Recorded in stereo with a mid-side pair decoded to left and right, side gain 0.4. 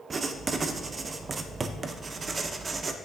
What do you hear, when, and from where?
0.1 s writing: 45° right, 0.5 m